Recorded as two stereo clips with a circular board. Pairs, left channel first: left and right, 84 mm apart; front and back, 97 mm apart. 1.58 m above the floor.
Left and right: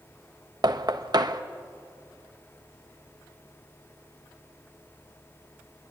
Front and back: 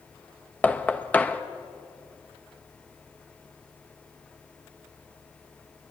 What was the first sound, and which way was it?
Knocking, 70° right.